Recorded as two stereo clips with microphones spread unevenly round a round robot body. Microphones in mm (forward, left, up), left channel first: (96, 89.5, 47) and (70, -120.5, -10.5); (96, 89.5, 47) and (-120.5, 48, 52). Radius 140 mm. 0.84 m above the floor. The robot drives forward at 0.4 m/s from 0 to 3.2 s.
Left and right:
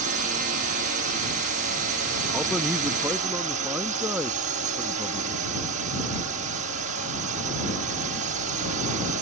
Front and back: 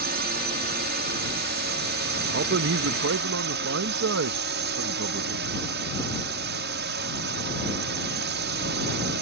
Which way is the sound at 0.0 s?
130° right.